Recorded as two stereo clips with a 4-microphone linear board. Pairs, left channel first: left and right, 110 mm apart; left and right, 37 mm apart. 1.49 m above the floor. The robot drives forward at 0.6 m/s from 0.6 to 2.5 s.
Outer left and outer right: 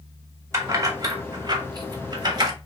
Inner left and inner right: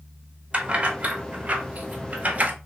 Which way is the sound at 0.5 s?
25° right (ahead or behind).